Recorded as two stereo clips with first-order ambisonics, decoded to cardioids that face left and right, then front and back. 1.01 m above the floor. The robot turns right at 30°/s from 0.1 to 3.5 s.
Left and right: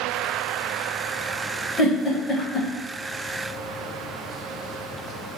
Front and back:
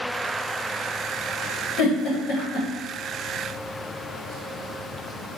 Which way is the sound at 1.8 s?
20° left.